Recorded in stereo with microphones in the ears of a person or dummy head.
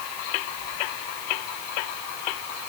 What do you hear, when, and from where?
Only background noise.